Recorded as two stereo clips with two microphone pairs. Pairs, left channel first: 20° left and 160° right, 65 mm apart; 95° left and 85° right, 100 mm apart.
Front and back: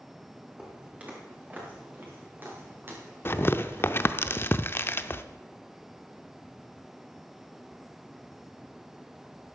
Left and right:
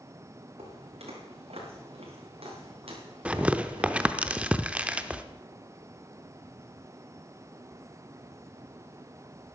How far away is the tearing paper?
About 0.7 m.